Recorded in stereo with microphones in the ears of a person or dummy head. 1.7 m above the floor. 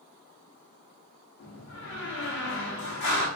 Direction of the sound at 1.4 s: 50° left (ahead or behind).